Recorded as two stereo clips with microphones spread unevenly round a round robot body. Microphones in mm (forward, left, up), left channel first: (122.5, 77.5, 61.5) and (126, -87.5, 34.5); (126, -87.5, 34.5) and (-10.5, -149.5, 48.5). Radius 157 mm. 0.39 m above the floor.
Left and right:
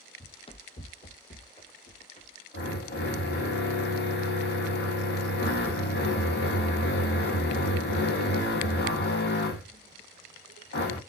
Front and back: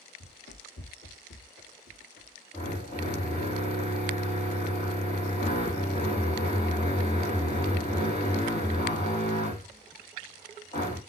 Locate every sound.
0.2 s running footsteps: 35° left, 1.1 m; by 2.4 s 45° left, 3 m
2.5 s a drill: 90° left, 4 m